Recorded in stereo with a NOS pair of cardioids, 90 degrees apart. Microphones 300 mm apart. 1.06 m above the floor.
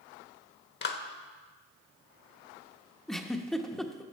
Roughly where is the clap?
Ahead left.